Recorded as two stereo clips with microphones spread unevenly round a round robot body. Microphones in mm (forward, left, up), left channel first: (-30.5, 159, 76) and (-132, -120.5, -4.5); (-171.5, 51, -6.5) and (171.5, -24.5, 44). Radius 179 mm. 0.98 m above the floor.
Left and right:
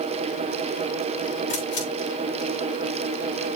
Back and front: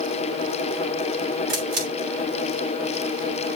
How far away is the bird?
No bird in this recording.